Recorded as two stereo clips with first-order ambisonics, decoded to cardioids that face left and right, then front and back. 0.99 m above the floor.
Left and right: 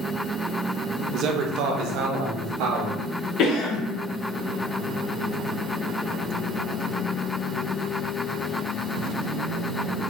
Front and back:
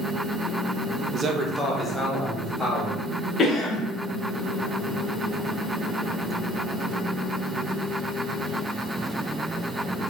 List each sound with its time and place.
1.1 s a man speaking: 130° right, 0.6 m; by 3.0 s 85° right, 2.0 m
3.4 s a cough: 60° left, 0.7 m